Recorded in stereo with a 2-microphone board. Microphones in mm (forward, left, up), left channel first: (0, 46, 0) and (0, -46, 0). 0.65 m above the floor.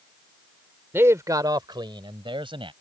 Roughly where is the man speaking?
Right.